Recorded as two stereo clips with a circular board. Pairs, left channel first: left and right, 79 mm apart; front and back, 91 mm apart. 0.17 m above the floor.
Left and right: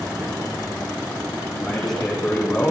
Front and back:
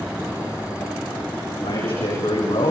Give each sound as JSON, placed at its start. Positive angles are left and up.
{"t": 1.6, "sound": "a man speaking", "azimuth_deg": 5, "distance_m": 9.5}